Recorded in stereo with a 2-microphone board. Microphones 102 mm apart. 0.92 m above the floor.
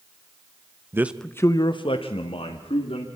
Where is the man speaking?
25° right (ahead or behind), 0.7 m; by 3.1 s 75° left (ahead or behind), 2.5 m.